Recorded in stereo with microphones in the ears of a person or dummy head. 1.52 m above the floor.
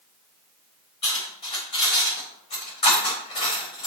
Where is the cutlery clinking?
25° left (ahead or behind), 4 m.